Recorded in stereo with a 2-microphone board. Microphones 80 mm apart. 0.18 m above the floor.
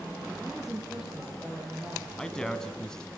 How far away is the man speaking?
About 1.7 m.